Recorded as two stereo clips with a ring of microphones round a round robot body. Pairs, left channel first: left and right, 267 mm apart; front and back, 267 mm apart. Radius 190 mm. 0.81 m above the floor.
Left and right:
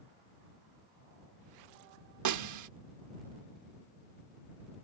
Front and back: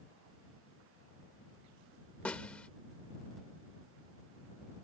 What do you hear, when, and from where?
2.2 s a snare drum: 85° right